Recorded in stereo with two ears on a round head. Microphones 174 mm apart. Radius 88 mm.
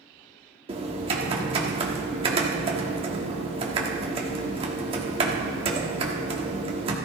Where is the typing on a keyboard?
30° right (ahead or behind), 1.4 m.